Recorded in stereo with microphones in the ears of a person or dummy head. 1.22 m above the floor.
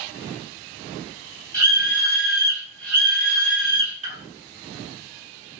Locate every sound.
1.5 s a scream: 20° left (ahead or behind), 1.3 m; by 4.2 s 30° right (ahead or behind), 0.6 m